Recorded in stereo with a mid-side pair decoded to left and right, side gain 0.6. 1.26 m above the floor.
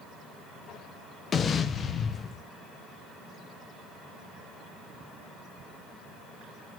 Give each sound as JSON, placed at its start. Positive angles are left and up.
{"t": 1.3, "sound": "an explosion", "azimuth_deg": 40, "distance_m": 0.6}